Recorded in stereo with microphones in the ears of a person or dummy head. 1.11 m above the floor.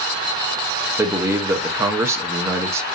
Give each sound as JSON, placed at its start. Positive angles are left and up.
{"t": 1.0, "sound": "a man speaking", "side_deg": -15, "distance_m": 0.8}